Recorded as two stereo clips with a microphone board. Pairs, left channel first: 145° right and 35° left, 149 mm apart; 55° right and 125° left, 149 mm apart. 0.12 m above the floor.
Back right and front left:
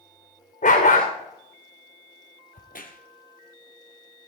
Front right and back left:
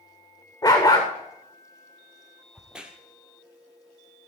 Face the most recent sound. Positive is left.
turn(degrees=-155)